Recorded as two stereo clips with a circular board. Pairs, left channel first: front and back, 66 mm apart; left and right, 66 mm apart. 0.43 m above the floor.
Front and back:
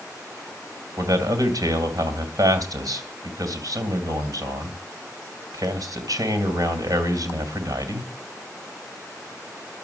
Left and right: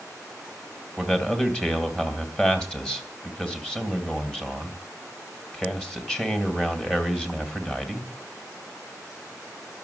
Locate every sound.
1.0 s a man speaking: 170° left, 3 m